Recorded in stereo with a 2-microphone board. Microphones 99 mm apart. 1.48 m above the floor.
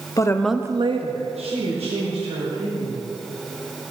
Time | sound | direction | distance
0.2 | a woman speaking | 35° left (ahead or behind) | 0.8 m